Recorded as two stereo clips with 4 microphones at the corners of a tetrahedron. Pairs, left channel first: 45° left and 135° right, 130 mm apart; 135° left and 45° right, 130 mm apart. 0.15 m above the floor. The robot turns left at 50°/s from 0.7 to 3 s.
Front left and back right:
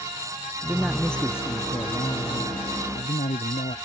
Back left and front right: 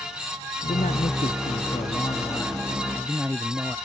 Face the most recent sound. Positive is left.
turn(degrees=35)